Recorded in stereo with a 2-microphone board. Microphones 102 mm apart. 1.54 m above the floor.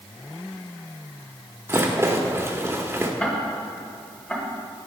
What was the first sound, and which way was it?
A rattle, 25° right (ahead or behind).